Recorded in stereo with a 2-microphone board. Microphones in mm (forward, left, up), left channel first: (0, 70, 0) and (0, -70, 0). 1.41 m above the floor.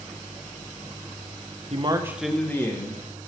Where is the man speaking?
45° right (ahead or behind), 0.8 m; by 3.0 s 30° left (ahead or behind), 1.5 m.